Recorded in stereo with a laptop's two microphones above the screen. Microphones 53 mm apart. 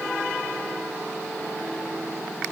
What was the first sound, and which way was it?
Only background noise.